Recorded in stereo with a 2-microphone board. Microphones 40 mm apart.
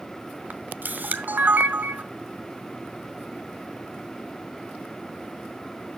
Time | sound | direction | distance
0.5 | a camera shutter | 50° right (ahead or behind) | 0.9 m